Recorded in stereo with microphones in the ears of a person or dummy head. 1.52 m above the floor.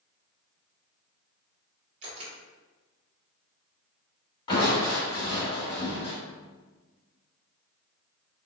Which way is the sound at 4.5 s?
25° left (ahead or behind).